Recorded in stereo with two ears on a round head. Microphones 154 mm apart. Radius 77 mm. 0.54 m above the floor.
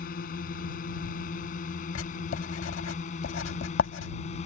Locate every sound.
0.0 s a drone: 55° left (ahead or behind); by 4.5 s 40° left (ahead or behind)
1.9 s writing: 90° left